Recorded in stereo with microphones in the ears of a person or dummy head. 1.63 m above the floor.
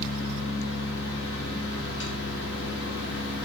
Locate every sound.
0.0 s a fan: 70° left (ahead or behind), 1.7 m